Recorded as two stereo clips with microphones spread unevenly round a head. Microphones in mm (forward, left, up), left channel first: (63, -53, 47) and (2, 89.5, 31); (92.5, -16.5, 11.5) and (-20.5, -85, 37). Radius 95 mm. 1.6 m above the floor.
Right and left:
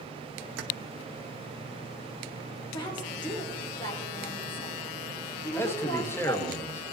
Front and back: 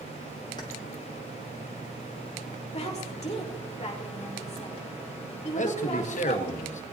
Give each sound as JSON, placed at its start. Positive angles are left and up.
{"t": 0.6, "sound": "keys jangling", "azimuth_deg": 105, "distance_m": 1.0}
{"t": 2.7, "sound": "a woman speaking", "azimuth_deg": -10, "distance_m": 5.0}
{"t": 5.5, "sound": "a man speaking", "azimuth_deg": 10, "distance_m": 1.6}